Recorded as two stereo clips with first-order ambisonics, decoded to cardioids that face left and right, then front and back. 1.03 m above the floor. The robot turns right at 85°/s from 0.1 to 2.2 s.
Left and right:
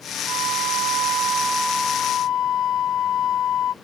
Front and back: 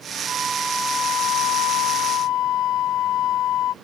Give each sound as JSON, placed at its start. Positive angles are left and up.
{"t": 0.3, "sound": "a flute", "azimuth_deg": -125}